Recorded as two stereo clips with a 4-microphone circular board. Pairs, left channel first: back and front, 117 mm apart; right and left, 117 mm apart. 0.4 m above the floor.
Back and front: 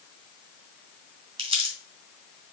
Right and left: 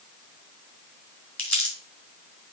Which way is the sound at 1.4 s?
20° right.